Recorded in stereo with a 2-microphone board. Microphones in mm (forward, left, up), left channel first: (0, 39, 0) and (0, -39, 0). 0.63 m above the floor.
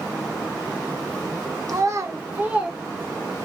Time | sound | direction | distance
1.7 | a child speaking | 50° right (ahead or behind) | 0.9 m